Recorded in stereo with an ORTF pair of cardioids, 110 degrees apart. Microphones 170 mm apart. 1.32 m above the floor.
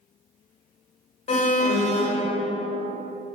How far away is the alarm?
About 1.3 m.